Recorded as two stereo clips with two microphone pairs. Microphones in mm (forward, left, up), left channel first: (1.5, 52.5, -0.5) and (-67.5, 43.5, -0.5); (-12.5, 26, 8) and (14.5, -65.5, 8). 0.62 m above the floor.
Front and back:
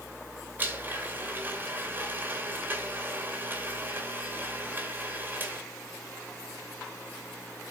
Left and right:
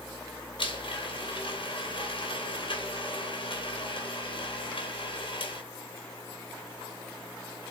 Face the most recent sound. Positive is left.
turn(degrees=125)